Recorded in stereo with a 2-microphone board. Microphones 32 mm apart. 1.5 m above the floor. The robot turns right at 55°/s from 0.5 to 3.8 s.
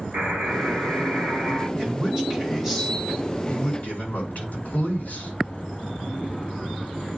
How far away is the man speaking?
About 5 m.